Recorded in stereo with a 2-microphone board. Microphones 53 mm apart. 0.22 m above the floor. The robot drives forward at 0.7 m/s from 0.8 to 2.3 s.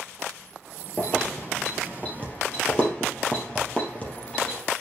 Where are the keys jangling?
30° left (ahead or behind), 3 m; by 4.6 s 25° left (ahead or behind), 3.5 m.